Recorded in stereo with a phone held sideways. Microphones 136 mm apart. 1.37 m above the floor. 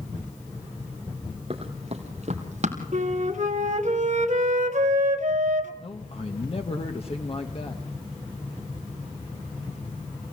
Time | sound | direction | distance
1.5 | running footsteps | 45° right (ahead or behind) | 2.5 m
2.9 | a flute | 60° right (ahead or behind) | 1.8 m
5.8 | a man speaking | 45° left (ahead or behind) | 1.3 m